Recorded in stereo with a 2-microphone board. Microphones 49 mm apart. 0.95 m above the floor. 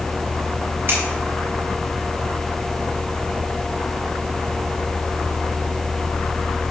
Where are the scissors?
50° right (ahead or behind), 5 m.